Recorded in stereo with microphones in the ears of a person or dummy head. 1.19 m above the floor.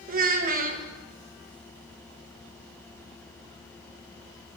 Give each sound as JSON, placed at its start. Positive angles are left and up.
{"t": 0.1, "sound": "a child speaking", "side_deg": -50, "distance_m": 1.1}